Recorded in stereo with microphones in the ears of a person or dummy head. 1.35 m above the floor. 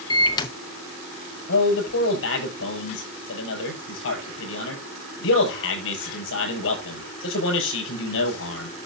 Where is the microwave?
25° left (ahead or behind), 0.9 m.